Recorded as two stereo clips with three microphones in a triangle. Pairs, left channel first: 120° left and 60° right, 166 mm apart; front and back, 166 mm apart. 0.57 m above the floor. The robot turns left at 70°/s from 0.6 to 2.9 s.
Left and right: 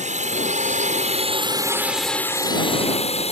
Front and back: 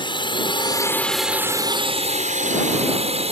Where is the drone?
50° right; by 3.3 s 150° left.